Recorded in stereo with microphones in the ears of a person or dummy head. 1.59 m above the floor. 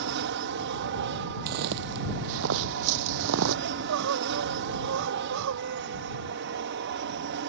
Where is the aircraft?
55° right (ahead or behind).